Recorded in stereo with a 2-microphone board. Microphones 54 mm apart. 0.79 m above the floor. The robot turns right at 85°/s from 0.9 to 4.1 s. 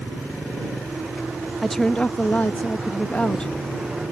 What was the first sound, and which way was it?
A woman speaking, straight ahead.